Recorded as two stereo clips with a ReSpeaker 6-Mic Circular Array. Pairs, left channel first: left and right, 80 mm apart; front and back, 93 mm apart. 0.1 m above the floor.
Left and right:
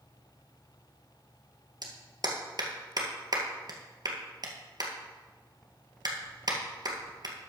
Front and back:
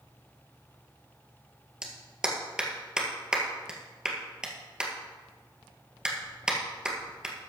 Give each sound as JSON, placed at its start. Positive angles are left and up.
{"t": 1.8, "sound": "a clap", "azimuth_deg": -100, "distance_m": 1.8}